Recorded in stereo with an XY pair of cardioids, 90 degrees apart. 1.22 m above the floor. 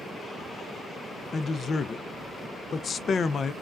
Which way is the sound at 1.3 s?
50° left.